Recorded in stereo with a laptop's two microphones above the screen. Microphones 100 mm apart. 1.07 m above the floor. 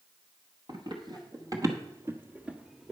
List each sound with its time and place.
0.7 s running footsteps: 50° right (ahead or behind), 1.7 m; by 2.9 s centre (ahead or behind), 1.1 m